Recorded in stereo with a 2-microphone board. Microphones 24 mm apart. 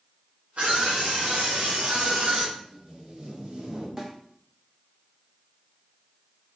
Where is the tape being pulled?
40° right (ahead or behind), 2 m.